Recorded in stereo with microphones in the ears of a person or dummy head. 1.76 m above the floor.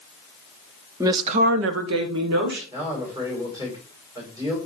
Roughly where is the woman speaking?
Centre.